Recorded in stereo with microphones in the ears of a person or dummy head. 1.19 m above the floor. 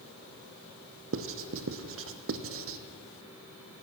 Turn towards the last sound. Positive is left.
turn(degrees=-60)  # may be behind; listen again after turning